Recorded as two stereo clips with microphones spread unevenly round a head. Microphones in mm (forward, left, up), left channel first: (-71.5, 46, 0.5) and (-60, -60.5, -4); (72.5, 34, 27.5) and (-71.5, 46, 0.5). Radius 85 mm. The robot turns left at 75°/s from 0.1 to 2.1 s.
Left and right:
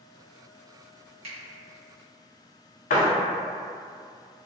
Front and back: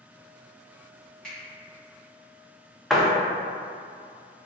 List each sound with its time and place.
1.2 s a finger snap: 95° right, 1.1 m; by 1.4 s 105° right, 1.1 m
2.9 s a door slam: 90° left, 0.6 m